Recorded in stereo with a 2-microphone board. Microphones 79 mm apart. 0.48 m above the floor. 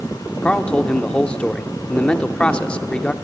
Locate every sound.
0.4 s a man speaking: 15° left (ahead or behind), 0.7 m